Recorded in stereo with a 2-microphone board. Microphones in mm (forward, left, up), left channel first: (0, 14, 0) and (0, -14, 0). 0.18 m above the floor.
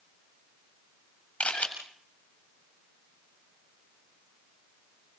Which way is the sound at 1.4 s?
50° left (ahead or behind).